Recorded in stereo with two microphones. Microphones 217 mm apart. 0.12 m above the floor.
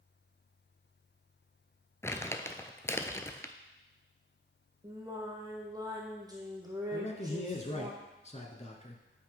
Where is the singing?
15° right (ahead or behind), 1.9 m.